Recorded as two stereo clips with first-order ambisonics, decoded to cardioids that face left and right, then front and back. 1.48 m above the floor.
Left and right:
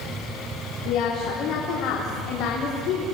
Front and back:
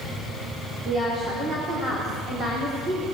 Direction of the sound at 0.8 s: 115° left.